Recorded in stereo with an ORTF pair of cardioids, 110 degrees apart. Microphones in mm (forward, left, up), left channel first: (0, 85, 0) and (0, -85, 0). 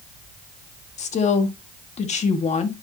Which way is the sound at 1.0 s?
40° left.